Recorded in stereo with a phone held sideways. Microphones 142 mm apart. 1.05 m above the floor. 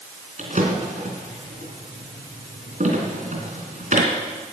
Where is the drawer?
60° right (ahead or behind), 3.5 m.